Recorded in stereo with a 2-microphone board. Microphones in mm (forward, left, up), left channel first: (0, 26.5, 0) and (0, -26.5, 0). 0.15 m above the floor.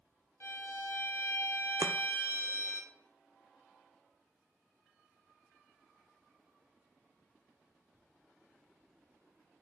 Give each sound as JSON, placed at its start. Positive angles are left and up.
{"t": 0.4, "sound": "a violin", "side_deg": 50, "distance_m": 2.0}
{"t": 1.8, "sound": "chopping", "side_deg": -75, "distance_m": 0.8}